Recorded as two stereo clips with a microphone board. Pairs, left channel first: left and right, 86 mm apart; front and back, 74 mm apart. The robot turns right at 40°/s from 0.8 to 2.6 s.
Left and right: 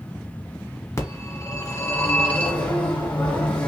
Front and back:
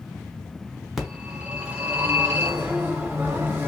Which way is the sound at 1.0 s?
90° left.